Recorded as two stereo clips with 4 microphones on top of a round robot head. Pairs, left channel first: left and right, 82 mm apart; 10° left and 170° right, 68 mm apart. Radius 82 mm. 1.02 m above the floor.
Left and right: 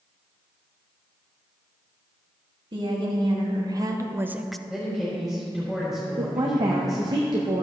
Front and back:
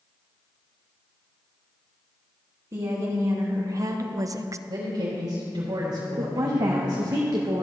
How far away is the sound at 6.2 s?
About 0.9 m.